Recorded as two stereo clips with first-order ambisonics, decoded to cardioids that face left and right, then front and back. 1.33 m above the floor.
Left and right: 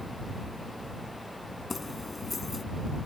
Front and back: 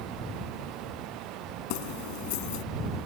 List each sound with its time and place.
1.7 s keys jangling: 10° left